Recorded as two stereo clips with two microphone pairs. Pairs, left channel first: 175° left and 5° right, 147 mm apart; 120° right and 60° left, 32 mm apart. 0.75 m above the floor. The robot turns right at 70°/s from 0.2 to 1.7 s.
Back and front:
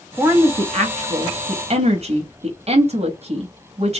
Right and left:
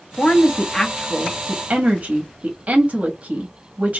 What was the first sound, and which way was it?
A woman speaking, 75° right.